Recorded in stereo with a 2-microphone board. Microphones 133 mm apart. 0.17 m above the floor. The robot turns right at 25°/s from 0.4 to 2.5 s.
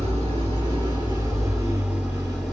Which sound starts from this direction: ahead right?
An engine running, at 0.0 s.